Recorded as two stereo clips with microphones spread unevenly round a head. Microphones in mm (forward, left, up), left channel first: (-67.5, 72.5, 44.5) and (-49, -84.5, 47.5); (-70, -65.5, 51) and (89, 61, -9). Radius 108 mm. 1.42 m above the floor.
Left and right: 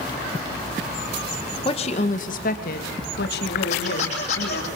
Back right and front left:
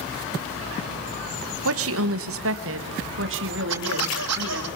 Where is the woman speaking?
35° left, 1.5 m; by 4.7 s 75° left, 4 m.